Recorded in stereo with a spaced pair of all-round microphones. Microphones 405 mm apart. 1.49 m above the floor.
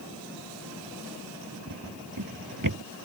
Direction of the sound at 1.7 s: 50° right (ahead or behind).